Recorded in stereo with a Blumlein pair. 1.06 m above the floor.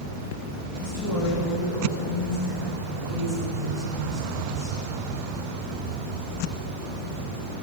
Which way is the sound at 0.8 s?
55° left.